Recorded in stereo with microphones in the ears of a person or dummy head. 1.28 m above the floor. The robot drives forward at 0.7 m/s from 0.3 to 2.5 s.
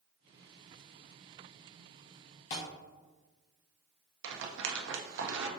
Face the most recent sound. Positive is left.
turn(degrees=-75)  # may be behind; listen again after turning